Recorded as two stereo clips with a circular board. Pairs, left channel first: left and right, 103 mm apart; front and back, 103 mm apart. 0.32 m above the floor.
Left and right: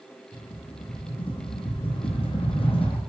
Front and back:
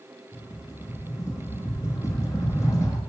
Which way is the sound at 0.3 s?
60° left.